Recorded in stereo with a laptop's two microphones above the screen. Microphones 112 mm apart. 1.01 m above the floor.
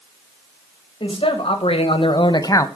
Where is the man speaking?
55° left (ahead or behind), 1.6 m; by 2.7 s 25° left (ahead or behind), 0.8 m.